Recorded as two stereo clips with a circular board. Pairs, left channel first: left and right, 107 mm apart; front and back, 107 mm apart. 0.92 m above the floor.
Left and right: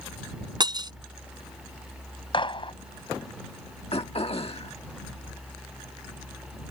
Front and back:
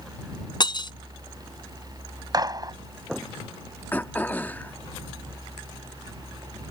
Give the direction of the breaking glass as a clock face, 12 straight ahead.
1 o'clock.